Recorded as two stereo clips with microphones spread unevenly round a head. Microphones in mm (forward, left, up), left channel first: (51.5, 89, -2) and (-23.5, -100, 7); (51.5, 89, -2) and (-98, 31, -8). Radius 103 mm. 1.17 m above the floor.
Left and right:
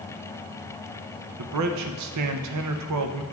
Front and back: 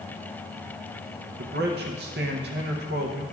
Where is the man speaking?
110° right, 0.6 m.